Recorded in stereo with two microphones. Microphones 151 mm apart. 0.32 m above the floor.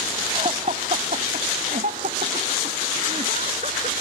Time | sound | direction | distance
0.3 | laughter | 40° right (ahead or behind) | ?